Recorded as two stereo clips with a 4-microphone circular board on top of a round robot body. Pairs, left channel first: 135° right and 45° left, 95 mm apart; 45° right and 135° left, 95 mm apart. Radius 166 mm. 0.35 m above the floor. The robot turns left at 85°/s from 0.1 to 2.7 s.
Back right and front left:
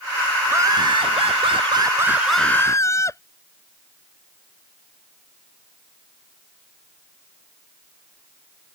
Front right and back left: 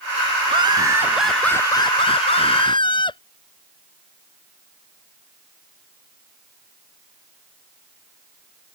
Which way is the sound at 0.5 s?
115° left.